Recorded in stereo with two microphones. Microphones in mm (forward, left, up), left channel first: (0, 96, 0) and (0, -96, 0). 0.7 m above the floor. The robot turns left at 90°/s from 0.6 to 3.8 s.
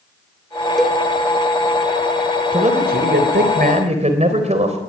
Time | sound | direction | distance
0.8 | a cowbell | centre (ahead or behind) | 1.2 m
2.5 | a man speaking | 30° right | 3.5 m